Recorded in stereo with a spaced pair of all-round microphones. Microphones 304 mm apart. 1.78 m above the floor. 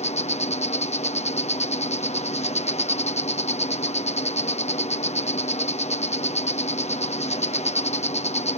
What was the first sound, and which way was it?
An insect, 20° left (ahead or behind).